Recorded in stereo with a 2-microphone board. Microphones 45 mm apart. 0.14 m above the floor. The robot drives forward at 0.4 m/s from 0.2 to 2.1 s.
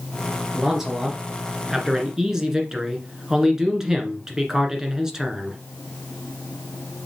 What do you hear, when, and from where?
0.5 s a man speaking: 10° right (ahead or behind), 2 m